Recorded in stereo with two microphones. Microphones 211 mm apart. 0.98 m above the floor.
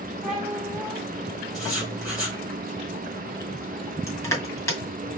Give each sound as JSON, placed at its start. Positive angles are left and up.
{"t": 0.2, "sound": "a cat meowing", "side_deg": 0, "distance_m": 1.9}
{"t": 1.5, "sound": "writing", "side_deg": -5, "distance_m": 3.0}
{"t": 4.1, "sound": "crushing", "side_deg": 15, "distance_m": 2.0}